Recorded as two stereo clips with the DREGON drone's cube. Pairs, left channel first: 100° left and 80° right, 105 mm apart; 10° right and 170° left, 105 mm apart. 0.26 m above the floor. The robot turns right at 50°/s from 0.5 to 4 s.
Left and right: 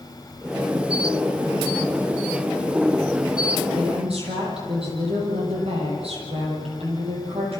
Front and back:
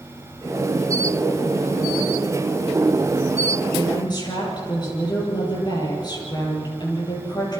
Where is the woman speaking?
70° right, 8 m; by 7.6 s 60° right, 8 m.